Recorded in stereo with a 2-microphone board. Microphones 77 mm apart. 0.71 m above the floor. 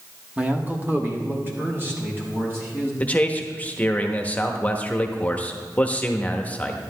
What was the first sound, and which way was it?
A man speaking, 15° right (ahead or behind).